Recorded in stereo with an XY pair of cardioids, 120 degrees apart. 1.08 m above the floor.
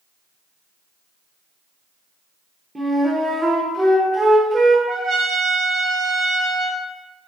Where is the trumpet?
45° right, 0.5 m.